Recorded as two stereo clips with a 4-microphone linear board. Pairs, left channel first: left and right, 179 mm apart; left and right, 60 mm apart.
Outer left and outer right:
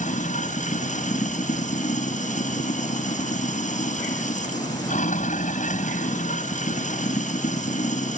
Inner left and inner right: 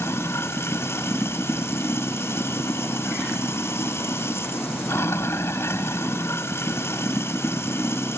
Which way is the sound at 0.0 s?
45° left (ahead or behind).